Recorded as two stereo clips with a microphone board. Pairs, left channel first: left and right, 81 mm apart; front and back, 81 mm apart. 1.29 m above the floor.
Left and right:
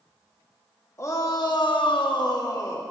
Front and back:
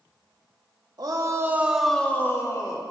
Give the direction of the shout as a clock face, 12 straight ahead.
7 o'clock.